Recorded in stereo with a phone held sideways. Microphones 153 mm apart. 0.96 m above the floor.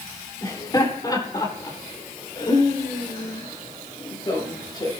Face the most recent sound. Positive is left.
turn(degrees=25)  # may be behind; listen again after turning